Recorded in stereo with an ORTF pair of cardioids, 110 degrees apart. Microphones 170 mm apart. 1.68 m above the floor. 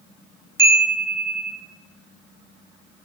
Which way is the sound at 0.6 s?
15° right.